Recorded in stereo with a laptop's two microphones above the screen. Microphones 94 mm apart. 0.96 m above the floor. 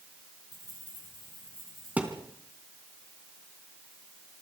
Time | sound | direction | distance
0.5 | keys jangling | 45° right (ahead or behind) | 8.5 m
2.0 | a thud | 15° right (ahead or behind) | 3.5 m